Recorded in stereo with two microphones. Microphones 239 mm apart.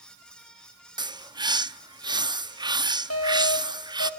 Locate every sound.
1.0 s a bird: 20° right (ahead or behind), 0.6 m
3.1 s an alarm: 75° left (ahead or behind), 4 m